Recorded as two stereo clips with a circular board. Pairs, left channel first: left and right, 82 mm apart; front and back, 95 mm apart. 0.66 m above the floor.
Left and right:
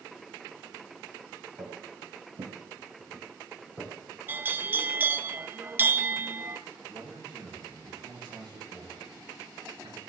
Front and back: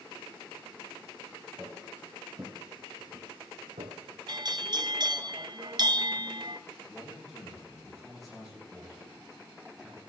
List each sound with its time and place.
1.6 s footsteps: 90° right, 2.5 m; by 3.9 s 175° right, 2.5 m
4.3 s a bell: 150° right, 0.5 m
6.9 s a man speaking: 90° right, 6.5 m